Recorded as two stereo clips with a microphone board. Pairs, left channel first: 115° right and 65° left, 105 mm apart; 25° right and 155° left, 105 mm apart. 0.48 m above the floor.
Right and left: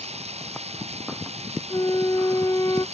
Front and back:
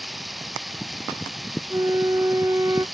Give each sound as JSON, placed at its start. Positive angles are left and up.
{"t": 0.0, "sound": "running water", "azimuth_deg": 70}
{"t": 1.7, "sound": "a flute", "azimuth_deg": -155}